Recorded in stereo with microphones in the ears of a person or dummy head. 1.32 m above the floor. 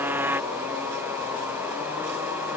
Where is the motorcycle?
10° right (ahead or behind).